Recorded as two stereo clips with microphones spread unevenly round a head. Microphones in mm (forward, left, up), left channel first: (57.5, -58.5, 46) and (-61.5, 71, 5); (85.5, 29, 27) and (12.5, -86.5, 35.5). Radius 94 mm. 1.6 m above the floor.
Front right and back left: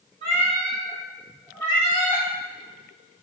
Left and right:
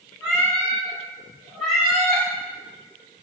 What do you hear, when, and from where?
0.2 s a cat meowing: 155° left, 1.2 m; by 2.2 s 40° right, 1.3 m